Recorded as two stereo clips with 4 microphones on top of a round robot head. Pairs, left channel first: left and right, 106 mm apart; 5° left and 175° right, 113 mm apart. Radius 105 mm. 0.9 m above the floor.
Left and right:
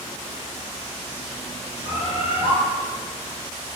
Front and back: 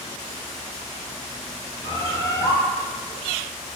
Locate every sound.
1.8 s a bird: 60° left, 3.5 m